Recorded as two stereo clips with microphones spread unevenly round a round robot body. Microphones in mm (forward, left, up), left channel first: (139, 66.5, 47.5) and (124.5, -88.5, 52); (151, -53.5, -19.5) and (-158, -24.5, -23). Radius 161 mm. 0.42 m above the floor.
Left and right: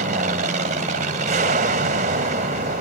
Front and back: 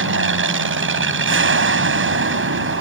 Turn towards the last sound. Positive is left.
turn(degrees=-140)